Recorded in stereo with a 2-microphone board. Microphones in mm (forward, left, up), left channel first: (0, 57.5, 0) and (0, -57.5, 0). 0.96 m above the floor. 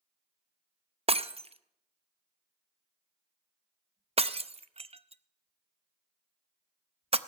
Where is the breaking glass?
60° right (ahead or behind), 0.5 m.